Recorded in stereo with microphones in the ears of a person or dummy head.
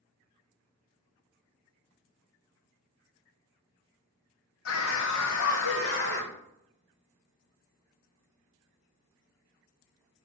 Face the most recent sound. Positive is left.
turn(degrees=55)  # may be behind; listen again after turning